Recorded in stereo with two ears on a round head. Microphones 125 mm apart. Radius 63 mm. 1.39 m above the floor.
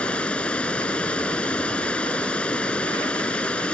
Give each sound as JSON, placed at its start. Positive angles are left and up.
{"t": 0.0, "sound": "running water", "side_deg": 10}